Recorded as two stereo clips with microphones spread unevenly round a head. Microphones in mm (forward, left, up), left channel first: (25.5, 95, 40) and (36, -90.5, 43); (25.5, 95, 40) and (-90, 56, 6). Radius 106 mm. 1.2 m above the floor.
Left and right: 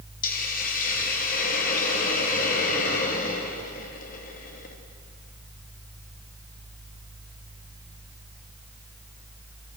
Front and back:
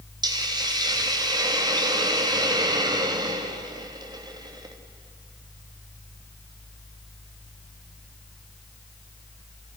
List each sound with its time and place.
0.2 s a hiss: 145° left, 2.5 m